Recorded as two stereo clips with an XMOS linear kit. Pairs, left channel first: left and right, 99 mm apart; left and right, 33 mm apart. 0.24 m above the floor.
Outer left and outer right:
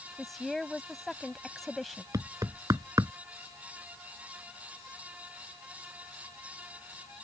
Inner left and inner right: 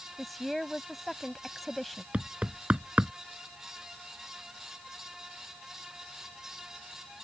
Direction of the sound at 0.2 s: Centre (ahead or behind).